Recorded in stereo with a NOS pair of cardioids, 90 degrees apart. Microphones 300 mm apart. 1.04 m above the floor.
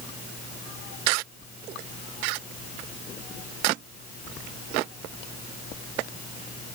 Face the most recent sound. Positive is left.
No sound to turn to.